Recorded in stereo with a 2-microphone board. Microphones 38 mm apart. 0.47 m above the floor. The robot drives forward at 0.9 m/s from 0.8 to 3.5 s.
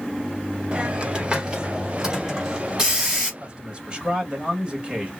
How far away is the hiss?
About 1.3 m.